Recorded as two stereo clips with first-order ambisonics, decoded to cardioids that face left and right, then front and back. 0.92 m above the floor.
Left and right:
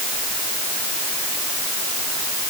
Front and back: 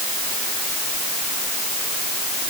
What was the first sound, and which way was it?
Only background noise.